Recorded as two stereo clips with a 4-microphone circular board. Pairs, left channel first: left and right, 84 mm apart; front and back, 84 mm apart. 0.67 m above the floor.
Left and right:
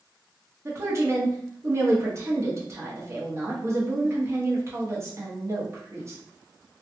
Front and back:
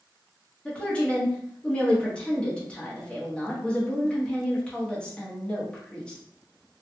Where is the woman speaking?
70° right, 1.0 m.